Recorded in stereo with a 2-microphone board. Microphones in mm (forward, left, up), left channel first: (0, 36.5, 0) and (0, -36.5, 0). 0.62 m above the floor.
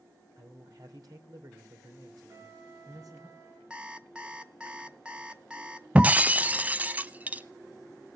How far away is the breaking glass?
About 0.5 m.